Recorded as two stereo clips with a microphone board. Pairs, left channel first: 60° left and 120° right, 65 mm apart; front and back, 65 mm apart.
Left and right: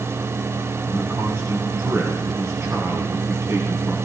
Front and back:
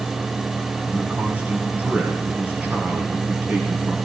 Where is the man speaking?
125° right, 1.7 m.